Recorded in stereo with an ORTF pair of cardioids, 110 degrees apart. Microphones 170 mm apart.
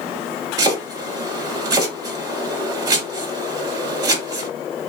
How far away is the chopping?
About 3 m.